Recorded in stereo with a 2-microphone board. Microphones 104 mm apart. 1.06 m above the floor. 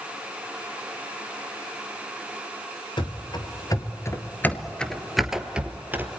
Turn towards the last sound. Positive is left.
turn(degrees=-20)  # may be behind; listen again after turning